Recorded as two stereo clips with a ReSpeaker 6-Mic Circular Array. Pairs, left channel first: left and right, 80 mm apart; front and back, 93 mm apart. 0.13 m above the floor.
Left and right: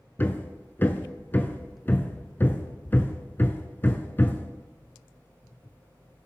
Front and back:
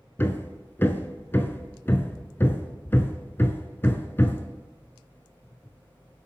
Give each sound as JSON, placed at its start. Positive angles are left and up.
{"t": 0.2, "sound": "hammering", "azimuth_deg": 45, "distance_m": 0.7}